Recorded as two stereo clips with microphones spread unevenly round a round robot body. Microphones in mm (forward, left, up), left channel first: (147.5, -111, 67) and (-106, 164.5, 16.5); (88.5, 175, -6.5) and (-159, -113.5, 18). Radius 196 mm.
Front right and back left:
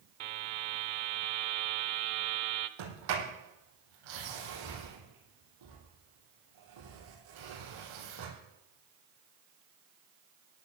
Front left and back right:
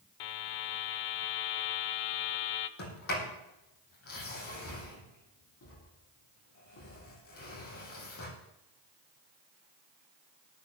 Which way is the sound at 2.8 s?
105° left.